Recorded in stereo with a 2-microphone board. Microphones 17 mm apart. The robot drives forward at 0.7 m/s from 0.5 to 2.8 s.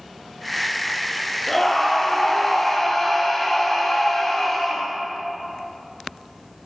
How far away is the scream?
About 5 m.